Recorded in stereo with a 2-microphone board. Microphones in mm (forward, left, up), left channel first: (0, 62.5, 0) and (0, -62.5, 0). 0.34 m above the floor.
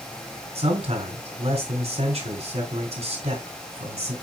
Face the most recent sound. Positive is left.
turn(degrees=-60)  # may be behind; listen again after turning